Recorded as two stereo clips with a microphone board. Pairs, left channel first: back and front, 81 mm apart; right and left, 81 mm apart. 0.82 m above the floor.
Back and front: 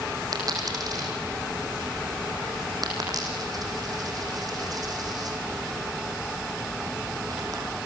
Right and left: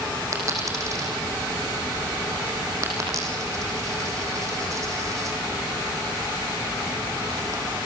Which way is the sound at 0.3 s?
40° left.